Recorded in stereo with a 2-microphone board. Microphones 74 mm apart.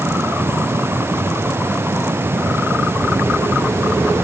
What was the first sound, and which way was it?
Only background noise.